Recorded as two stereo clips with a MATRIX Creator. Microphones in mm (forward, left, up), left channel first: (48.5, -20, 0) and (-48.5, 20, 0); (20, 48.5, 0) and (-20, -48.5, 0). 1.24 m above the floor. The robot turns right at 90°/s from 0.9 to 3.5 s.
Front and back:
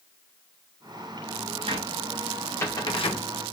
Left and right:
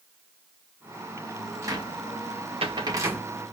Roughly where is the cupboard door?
Behind.